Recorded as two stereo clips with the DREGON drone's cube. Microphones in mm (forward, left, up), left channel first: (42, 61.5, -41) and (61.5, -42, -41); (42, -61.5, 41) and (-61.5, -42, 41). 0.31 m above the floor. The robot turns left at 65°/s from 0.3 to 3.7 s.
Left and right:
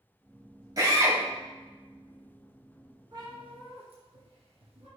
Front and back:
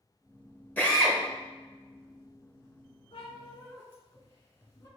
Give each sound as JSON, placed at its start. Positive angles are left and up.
{"t": 0.8, "sound": "a drill", "azimuth_deg": -75, "distance_m": 1.0}
{"t": 3.1, "sound": "a cat meowing", "azimuth_deg": -25, "distance_m": 1.7}